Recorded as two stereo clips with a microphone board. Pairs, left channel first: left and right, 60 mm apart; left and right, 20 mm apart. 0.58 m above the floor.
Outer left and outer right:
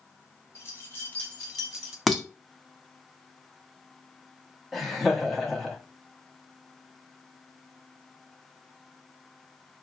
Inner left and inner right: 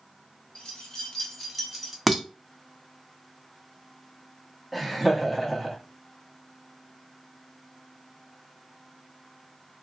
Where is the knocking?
I don't hear knocking.